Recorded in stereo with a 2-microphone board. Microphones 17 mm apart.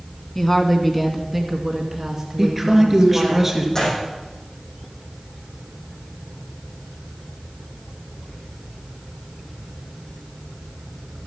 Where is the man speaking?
15° right (ahead or behind), 2.5 m.